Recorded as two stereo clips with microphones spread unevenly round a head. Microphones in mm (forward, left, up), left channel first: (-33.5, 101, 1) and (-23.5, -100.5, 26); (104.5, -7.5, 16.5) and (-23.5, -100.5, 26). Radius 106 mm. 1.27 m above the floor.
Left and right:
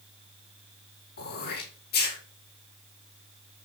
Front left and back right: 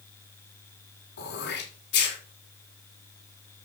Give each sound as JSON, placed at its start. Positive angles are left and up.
{"t": 1.2, "sound": "throat clearing", "azimuth_deg": 45, "distance_m": 4.5}